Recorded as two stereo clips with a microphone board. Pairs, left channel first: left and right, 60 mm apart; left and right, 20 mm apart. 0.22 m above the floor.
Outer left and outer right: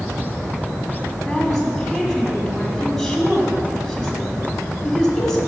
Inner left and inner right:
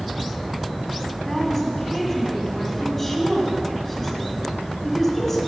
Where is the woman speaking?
5° left (ahead or behind), 1.7 m.